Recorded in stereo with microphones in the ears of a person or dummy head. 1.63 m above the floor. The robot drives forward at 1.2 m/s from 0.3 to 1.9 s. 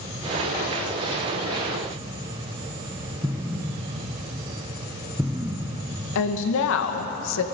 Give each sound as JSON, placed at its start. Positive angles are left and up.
{"t": 3.2, "sound": "an explosion", "side_deg": -15, "distance_m": 0.8}
{"t": 6.2, "sound": "a woman speaking", "side_deg": 70, "distance_m": 2.0}